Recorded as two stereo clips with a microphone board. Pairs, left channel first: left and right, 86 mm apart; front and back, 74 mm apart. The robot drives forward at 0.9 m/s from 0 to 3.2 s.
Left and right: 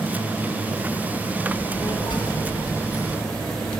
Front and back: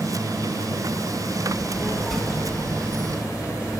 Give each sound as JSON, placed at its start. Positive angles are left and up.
{"t": 1.4, "sound": "a child speaking", "azimuth_deg": 50, "distance_m": 1.3}